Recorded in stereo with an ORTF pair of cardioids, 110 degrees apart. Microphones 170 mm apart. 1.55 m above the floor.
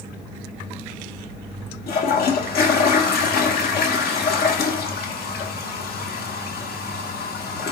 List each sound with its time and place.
1.9 s a toilet flushing: 65° left, 1.9 m